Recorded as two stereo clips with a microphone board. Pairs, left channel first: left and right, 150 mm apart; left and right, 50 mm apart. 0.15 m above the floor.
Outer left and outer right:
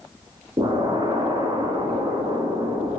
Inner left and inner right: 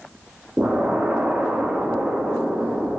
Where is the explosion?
30° right (ahead or behind), 1.7 m.